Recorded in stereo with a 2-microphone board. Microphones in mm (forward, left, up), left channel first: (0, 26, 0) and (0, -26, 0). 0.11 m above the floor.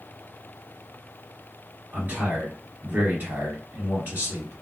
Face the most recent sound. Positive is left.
turn(degrees=-35)  # may be behind; listen again after turning